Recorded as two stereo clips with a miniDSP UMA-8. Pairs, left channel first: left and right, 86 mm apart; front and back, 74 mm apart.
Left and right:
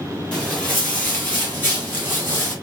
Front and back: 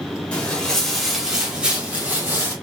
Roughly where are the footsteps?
Ahead left.